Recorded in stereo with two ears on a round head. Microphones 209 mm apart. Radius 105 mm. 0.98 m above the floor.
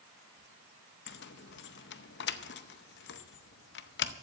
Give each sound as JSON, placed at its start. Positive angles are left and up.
{"t": 1.1, "sound": "keys jangling", "side_deg": 50, "distance_m": 0.7}